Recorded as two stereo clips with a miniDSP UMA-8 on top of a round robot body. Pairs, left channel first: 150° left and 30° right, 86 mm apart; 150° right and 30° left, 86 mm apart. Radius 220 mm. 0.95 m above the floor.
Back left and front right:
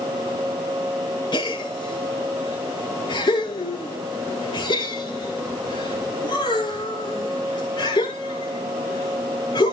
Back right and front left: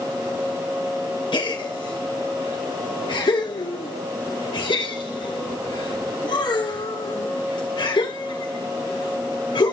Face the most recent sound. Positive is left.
turn(degrees=-175)